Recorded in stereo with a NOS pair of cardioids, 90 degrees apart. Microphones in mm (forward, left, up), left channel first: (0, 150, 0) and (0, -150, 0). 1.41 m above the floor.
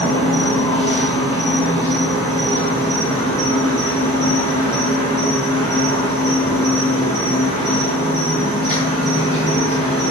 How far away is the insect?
About 1.2 m.